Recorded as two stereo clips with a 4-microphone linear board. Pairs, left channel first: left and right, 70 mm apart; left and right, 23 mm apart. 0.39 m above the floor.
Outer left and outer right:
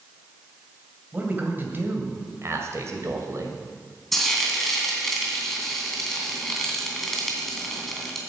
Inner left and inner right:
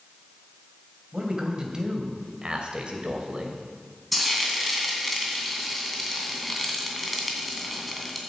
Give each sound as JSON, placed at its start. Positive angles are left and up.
{"t": 1.1, "sound": "a man speaking", "side_deg": -25, "distance_m": 2.5}
{"t": 4.1, "sound": "frying", "side_deg": 5, "distance_m": 2.5}